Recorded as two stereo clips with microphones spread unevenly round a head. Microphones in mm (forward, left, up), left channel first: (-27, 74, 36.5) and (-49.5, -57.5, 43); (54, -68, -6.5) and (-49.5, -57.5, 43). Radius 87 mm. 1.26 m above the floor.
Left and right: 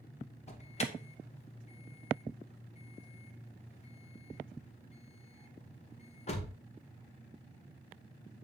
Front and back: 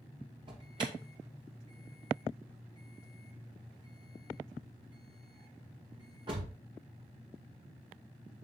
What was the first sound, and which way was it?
An alarm, 105° left.